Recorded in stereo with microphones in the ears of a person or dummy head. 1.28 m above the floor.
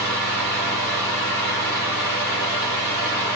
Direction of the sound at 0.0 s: 60° right (ahead or behind).